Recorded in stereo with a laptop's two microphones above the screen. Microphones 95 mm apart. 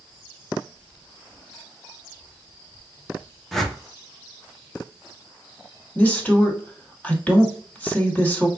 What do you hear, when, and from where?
3.5 s a whoosh: 5° left (ahead or behind), 0.9 m
6.0 s a woman speaking: 15° left (ahead or behind), 2 m